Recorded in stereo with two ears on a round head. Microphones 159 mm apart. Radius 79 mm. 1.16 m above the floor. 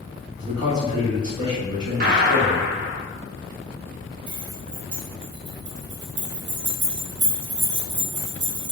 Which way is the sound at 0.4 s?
25° right (ahead or behind).